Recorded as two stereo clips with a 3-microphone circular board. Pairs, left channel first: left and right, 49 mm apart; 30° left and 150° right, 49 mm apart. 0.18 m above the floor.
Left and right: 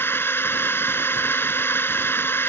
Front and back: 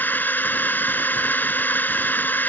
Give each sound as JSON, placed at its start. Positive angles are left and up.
{"t": 0.0, "sound": "a drone", "azimuth_deg": 70}